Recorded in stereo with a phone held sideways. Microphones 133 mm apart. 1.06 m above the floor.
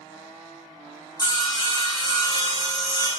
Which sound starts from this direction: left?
Sawing, at 1.2 s.